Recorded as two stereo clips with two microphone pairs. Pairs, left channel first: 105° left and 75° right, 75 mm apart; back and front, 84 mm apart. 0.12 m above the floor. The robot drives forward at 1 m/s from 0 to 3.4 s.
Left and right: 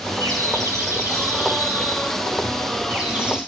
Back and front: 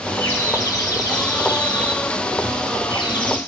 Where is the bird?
120° right, 2.5 m; by 3.4 s 155° right, 5 m.